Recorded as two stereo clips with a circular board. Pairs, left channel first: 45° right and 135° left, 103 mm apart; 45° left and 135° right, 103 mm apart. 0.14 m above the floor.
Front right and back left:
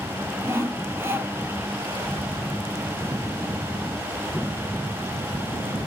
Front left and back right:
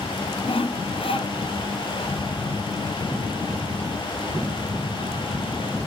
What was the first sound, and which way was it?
Sawing, 70° left.